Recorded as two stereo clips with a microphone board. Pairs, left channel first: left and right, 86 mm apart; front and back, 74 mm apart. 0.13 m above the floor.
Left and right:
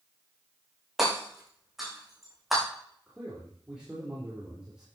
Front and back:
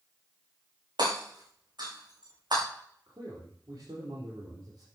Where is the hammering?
175° right, 7 m.